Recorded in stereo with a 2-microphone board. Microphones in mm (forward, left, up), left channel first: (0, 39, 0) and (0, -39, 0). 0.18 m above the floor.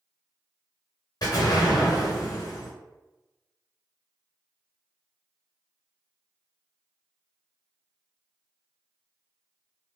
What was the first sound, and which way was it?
An explosion, 55° left (ahead or behind).